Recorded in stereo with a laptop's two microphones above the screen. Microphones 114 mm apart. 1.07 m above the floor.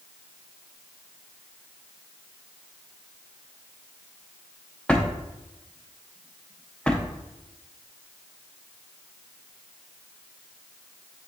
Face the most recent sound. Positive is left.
turn(degrees=10)  # may be behind; listen again after turning